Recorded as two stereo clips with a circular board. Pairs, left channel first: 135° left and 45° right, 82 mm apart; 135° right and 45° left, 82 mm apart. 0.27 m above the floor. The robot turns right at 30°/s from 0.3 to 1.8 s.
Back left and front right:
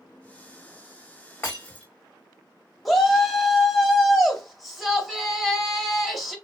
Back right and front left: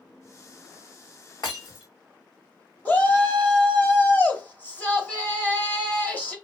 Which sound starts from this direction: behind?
Breaking glass, at 1.4 s.